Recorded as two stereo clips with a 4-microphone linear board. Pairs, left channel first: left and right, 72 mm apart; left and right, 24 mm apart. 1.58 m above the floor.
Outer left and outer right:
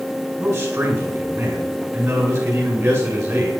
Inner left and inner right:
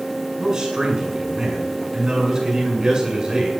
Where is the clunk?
No clunk in this recording.